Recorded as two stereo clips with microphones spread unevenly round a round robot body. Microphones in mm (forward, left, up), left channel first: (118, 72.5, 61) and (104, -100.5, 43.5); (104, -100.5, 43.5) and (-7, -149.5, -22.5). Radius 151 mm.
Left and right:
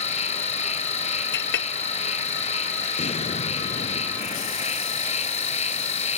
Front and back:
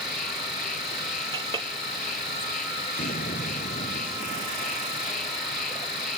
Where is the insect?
35° left.